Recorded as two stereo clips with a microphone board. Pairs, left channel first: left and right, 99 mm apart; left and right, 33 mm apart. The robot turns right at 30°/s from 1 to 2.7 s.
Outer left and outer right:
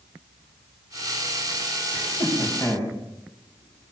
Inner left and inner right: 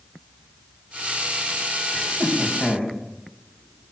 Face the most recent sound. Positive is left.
turn(degrees=25)  # may be behind; listen again after turning